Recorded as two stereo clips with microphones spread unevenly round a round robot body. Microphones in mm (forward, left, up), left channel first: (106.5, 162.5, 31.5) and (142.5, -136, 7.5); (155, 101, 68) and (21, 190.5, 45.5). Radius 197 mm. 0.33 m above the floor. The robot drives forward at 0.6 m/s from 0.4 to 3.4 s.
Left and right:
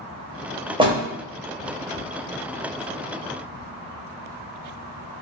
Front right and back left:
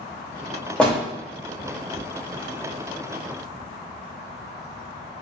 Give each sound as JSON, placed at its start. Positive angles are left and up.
{"t": 0.8, "sound": "a door slam", "azimuth_deg": -125, "distance_m": 0.6}